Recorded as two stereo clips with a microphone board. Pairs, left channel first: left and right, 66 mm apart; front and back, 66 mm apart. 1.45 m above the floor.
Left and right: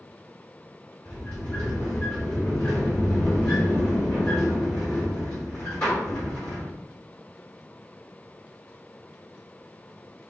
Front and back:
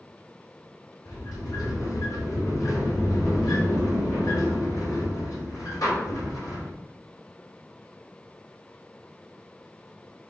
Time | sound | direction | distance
1.1 | a sliding door | 20° left | 3.5 m